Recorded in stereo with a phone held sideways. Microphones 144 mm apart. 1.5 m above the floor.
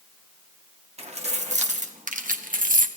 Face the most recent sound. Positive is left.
turn(degrees=-65)  # may be behind; listen again after turning